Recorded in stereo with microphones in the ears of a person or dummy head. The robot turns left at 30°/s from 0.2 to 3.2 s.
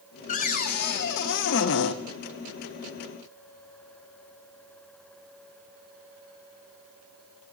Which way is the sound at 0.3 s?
135° left.